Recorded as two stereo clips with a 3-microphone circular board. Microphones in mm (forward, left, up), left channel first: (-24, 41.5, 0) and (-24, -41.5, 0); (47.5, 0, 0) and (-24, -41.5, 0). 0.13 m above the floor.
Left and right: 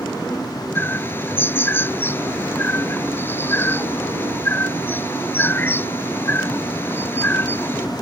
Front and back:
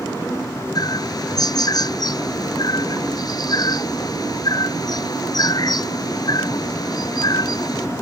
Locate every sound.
0.8 s a bird: 35° left